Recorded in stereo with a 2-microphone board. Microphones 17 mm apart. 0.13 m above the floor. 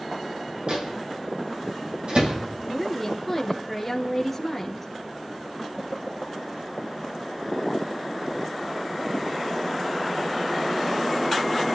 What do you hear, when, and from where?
0.7 s a microwave: 70° right (ahead or behind), 5 m
2.6 s a woman speaking: 5° left (ahead or behind), 2 m